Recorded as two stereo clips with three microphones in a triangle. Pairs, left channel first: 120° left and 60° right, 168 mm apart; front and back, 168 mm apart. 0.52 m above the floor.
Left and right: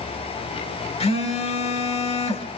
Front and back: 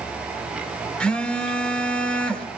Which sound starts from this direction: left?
A phone buzzing, at 1.0 s.